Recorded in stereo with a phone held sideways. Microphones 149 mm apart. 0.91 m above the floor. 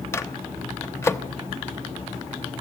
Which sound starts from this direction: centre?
A microwave, at 0.1 s.